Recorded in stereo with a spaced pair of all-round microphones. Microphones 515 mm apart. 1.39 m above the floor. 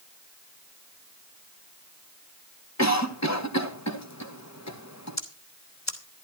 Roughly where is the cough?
Left.